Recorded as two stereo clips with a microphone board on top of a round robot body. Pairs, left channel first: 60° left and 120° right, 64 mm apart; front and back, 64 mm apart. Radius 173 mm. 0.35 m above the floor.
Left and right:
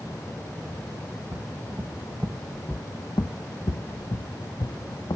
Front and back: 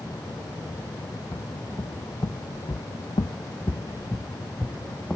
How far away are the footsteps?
About 1.3 m.